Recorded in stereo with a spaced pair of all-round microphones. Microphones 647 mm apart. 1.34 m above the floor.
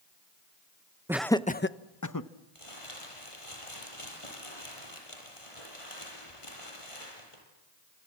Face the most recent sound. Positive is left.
turn(degrees=50)  # may be behind; listen again after turning